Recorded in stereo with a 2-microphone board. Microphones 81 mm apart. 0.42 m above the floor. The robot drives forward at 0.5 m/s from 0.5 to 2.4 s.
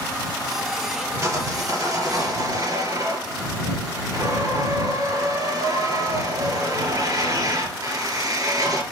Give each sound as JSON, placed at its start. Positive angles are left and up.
{"t": 1.2, "sound": "sawing", "side_deg": -45, "distance_m": 3.5}